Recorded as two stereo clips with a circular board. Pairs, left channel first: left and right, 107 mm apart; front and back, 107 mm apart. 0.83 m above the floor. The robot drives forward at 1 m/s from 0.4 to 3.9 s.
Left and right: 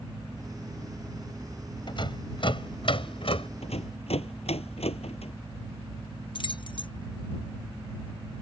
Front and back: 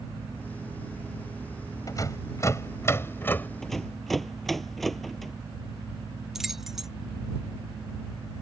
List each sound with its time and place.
1.9 s a rattle: 55° left; by 3.5 s 70° left
3.6 s a rattle: 85° left; by 5.3 s 90° left
6.3 s keys jangling: 95° left